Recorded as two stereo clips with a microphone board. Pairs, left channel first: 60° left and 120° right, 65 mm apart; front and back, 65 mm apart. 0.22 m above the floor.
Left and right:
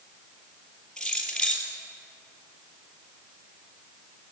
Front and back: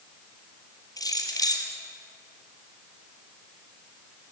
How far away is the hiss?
I don't hear a hiss.